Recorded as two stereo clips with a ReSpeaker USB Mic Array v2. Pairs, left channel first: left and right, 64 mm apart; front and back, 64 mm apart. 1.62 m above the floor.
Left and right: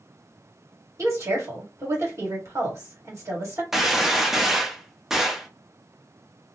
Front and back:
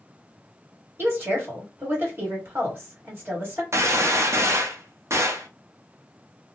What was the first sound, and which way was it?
A woman speaking, 130° right.